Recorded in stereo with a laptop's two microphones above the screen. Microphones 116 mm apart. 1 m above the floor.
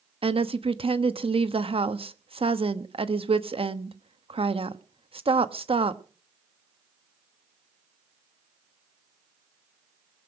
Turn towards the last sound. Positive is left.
turn(degrees=-55)  # may be behind; listen again after turning